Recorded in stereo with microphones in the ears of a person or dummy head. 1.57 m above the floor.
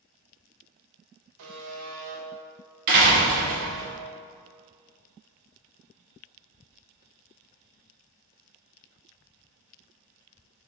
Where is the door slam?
55° right (ahead or behind), 1.7 m.